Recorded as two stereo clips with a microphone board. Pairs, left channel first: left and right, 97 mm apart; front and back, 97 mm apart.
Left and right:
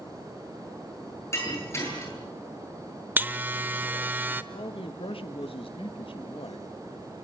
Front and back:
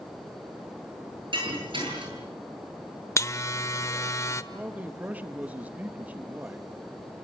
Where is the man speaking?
105° left, 1.3 m.